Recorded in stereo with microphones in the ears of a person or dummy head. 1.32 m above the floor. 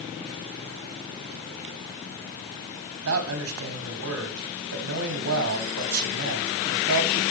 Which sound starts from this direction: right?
A man speaking, at 3.0 s.